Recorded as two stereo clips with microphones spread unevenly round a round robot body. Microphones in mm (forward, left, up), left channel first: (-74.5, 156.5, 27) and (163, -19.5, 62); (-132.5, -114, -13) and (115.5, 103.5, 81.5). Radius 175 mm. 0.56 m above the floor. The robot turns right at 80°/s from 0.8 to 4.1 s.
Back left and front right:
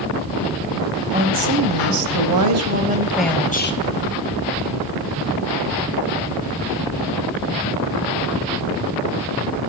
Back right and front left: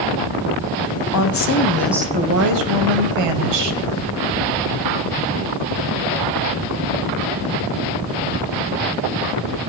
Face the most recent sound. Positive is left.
turn(degrees=125)